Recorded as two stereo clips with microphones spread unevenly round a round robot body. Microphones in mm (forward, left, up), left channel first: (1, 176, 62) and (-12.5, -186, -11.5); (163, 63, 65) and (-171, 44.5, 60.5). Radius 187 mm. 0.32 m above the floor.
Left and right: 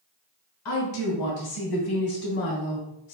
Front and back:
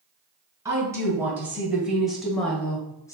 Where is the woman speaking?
105° left, 2.5 m; by 3.1 s 80° left, 1.5 m.